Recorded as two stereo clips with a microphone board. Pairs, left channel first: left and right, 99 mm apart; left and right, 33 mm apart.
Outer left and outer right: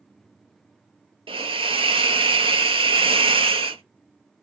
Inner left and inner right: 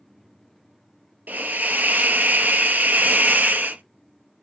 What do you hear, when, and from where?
1.3 s a hiss: 65° right (ahead or behind), 0.6 m